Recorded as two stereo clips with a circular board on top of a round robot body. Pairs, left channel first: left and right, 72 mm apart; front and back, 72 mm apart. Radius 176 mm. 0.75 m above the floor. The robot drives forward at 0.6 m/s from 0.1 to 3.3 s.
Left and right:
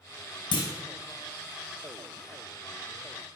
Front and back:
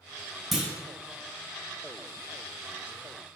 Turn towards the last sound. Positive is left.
turn(degrees=160)